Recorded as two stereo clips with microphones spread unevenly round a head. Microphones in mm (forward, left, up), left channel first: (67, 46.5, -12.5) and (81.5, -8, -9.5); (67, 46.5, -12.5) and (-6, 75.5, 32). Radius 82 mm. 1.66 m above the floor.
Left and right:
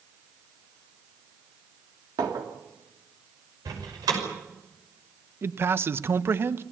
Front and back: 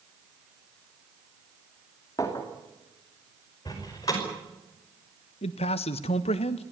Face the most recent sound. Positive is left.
turn(degrees=-35)